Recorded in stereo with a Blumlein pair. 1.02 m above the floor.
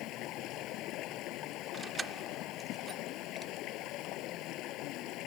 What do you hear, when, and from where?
0.0 s running water: 35° left
1.7 s keys jangling: 15° right